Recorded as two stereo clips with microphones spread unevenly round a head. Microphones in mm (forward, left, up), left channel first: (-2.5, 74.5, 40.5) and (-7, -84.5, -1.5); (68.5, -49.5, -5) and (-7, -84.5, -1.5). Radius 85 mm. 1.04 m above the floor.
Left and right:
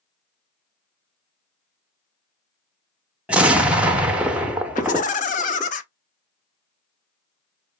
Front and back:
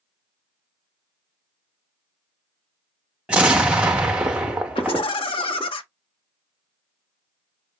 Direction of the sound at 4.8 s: 40° left.